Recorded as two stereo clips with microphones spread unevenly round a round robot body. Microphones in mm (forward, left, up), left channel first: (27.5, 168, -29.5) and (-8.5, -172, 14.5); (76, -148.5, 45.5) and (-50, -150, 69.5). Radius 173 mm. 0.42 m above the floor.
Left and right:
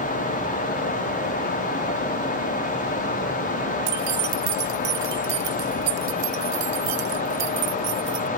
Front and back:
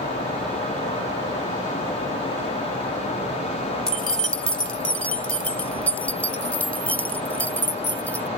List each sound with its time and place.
3.9 s keys jangling: 80° right; by 8.3 s 75° right